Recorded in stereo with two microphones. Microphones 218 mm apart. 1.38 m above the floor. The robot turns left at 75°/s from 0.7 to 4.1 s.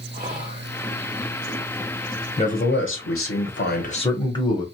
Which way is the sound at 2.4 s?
150° left.